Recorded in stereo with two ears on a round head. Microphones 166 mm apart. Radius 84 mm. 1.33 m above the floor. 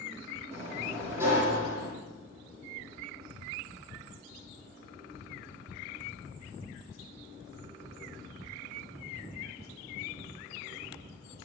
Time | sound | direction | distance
0.5 | a sliding door | 15° right (ahead or behind) | 9 m